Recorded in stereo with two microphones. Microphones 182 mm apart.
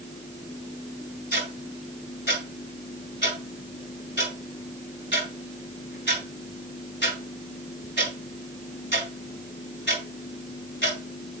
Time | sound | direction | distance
1.3 | ticking | 80° left | 3.5 m